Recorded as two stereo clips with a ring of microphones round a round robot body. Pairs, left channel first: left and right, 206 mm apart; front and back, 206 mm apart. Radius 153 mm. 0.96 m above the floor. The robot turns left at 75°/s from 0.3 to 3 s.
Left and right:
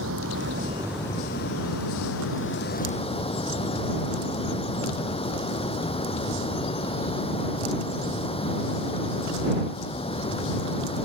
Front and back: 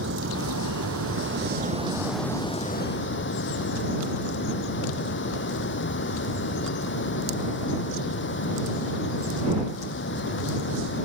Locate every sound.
0.0 s running water: 130° right; by 11.1 s 25° left